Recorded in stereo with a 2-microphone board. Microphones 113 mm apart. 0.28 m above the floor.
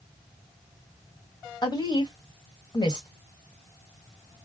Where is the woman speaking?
40° left (ahead or behind), 1.5 m.